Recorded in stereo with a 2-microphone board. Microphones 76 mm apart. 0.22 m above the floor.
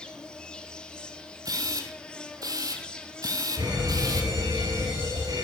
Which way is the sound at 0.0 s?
10° left (ahead or behind).